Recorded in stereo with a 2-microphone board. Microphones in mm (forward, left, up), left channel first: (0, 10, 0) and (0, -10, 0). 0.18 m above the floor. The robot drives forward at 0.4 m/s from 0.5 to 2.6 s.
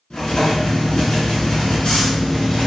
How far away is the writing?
About 1.2 m.